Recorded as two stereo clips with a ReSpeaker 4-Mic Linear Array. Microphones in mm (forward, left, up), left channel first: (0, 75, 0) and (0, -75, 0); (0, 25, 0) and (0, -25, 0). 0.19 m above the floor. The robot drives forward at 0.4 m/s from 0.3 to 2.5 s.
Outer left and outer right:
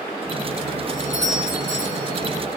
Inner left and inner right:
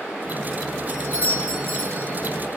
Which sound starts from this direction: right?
A doorbell, at 0.9 s.